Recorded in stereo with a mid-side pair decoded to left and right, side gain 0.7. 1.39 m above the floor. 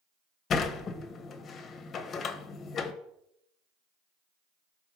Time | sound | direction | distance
0.5 | a sliding door | 35° left | 0.9 m